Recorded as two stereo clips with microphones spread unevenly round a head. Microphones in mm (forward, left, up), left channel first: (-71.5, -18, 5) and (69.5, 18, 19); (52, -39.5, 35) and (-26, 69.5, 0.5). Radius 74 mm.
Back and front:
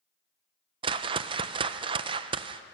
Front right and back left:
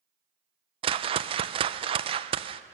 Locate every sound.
0.8 s a whoosh: 70° left, 0.5 m